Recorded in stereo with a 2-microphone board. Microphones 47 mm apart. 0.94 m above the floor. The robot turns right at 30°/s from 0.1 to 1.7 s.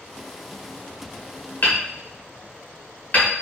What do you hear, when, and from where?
1.6 s hammering: 45° left (ahead or behind), 1.4 m; by 3.3 s 40° left (ahead or behind), 1.4 m